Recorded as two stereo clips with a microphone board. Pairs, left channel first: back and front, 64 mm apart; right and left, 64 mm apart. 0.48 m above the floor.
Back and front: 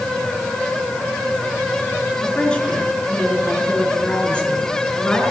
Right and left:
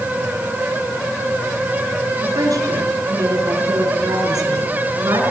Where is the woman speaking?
105° left, 5 m.